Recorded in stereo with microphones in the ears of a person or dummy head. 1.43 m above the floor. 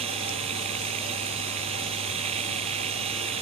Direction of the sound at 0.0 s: 35° right (ahead or behind).